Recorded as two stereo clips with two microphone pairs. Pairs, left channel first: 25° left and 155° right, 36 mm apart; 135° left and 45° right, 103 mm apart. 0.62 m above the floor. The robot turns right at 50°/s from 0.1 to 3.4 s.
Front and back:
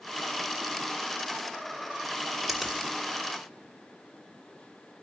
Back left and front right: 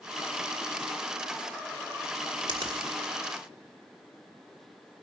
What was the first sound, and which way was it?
A finger snap, 80° right.